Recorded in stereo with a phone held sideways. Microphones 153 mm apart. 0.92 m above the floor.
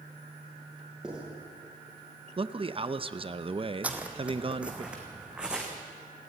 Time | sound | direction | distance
1.0 | writing | 5° right (ahead or behind) | 7.5 m
2.4 | a man speaking | 35° right (ahead or behind) | 0.7 m
3.8 | footsteps | 10° right (ahead or behind) | 1.9 m